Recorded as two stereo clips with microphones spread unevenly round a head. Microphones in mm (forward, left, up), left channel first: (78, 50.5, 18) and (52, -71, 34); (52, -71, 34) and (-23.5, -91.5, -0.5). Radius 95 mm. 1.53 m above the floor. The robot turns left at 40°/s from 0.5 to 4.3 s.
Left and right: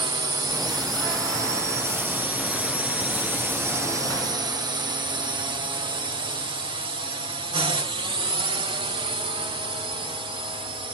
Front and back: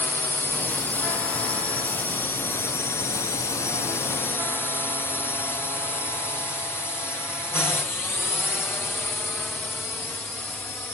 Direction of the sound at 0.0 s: 75° right.